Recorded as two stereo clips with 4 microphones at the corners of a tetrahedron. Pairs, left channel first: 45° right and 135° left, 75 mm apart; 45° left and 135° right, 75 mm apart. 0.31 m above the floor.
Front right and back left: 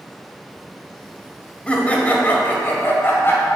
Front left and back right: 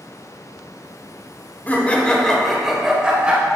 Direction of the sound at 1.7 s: 10° left.